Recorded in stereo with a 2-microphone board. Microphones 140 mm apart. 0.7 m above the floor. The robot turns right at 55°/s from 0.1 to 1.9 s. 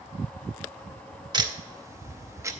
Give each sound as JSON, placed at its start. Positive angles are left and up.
{"t": 1.3, "sound": "ticking", "side_deg": -30, "distance_m": 0.7}